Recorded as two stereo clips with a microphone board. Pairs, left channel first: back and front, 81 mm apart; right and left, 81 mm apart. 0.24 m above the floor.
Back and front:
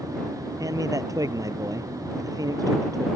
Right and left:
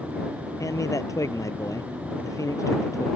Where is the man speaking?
45° right.